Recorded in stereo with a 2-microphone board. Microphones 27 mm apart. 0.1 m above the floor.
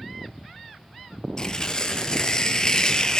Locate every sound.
1.4 s tearing paper: 30° left (ahead or behind), 1.1 m